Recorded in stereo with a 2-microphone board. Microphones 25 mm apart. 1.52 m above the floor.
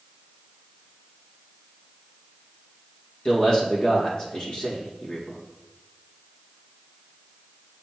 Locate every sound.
3.2 s a man speaking: 35° left (ahead or behind), 2 m